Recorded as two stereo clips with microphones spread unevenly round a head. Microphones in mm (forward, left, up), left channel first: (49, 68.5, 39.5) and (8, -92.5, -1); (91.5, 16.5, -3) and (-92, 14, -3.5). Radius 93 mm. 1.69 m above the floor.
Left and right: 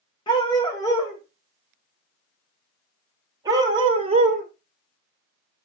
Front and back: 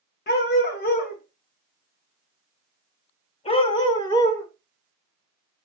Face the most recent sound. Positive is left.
turn(degrees=-65)